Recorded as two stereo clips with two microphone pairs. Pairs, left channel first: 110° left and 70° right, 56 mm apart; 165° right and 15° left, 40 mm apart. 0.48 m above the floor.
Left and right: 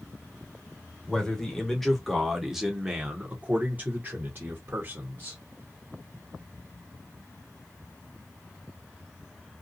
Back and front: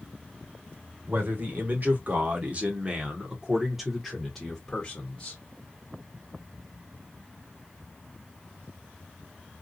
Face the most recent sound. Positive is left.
turn(degrees=-105)